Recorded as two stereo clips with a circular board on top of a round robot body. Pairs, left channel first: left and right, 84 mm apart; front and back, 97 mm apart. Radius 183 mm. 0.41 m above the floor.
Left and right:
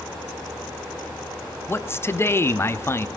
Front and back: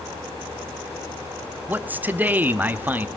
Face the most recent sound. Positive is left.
turn(degrees=120)